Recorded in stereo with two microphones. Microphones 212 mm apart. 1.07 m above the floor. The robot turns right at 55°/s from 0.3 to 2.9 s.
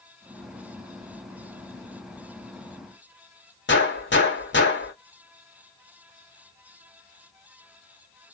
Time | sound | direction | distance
3.7 | a gunshot | 55° left (ahead or behind) | 1.4 m